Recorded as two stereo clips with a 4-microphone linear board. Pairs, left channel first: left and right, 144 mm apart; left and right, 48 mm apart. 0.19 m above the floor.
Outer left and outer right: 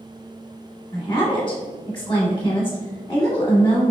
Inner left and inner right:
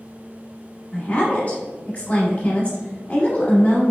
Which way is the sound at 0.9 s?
35° left (ahead or behind).